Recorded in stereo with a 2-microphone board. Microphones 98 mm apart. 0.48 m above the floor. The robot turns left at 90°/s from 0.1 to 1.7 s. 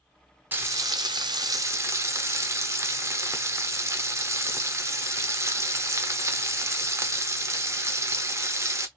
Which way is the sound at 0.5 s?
30° right.